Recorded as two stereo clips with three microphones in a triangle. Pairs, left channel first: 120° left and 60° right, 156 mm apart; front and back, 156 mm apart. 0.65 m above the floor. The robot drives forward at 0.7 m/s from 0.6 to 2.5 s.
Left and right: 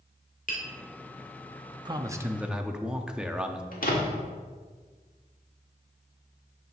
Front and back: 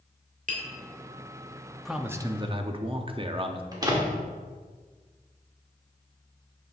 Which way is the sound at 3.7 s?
115° left.